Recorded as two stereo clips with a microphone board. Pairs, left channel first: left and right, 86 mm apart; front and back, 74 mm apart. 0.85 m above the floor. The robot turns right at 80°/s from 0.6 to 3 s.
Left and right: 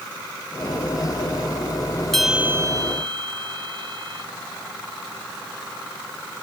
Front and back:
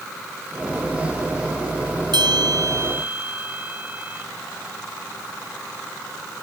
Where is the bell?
175° left; by 4.3 s 115° right.